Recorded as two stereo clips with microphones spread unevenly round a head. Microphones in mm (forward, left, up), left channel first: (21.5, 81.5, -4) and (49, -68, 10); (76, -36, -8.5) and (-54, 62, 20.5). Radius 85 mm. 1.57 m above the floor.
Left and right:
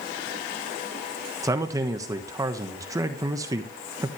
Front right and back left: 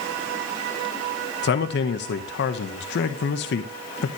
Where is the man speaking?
10° right, 1.4 m.